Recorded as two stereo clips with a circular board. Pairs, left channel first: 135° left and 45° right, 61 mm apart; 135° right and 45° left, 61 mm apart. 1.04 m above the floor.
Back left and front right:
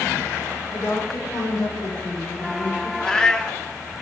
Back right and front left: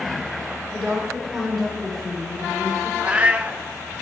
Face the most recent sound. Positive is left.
turn(degrees=75)